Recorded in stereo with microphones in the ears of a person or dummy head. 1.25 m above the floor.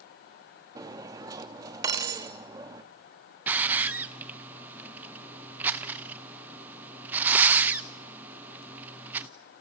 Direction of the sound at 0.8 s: 20° right (ahead or behind).